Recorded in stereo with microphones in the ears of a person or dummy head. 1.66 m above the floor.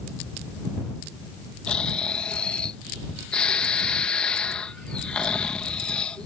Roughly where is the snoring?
Centre.